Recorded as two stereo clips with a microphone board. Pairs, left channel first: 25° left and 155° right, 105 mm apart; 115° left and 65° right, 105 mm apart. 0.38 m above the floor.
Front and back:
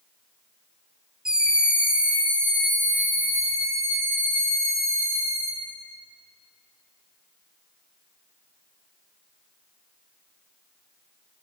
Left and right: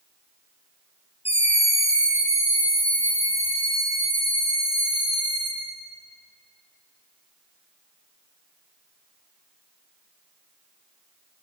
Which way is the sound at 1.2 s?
120° left.